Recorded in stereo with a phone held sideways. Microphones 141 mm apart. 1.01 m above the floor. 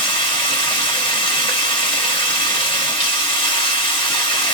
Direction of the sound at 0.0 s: 35° left (ahead or behind).